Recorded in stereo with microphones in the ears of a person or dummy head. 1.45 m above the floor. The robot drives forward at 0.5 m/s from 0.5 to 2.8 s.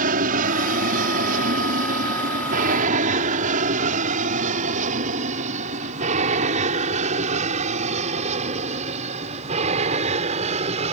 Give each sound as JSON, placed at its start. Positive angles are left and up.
{"t": 0.0, "sound": "an aircraft", "side_deg": -45}